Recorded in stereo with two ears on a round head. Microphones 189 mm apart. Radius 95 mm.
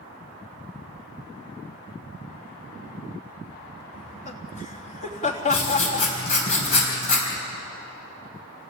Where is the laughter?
35° left (ahead or behind), 3.5 m.